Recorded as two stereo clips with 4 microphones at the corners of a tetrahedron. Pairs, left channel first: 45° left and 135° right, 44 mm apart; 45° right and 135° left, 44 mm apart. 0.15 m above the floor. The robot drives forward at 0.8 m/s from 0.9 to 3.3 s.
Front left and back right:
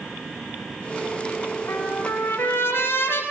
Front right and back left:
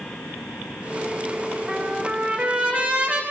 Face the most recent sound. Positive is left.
turn(degrees=80)